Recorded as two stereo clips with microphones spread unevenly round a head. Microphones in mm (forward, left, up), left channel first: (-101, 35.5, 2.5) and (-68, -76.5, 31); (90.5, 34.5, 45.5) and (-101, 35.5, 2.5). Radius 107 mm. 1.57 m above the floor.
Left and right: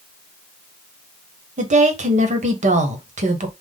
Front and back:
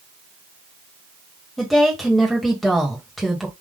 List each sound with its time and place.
1.6 s a woman speaking: 90° right, 1.3 m